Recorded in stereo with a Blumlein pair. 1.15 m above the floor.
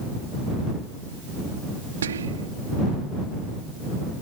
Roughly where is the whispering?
Ahead right.